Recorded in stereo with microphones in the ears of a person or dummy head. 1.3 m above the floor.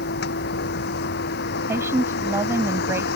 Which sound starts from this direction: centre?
A woman speaking, at 1.7 s.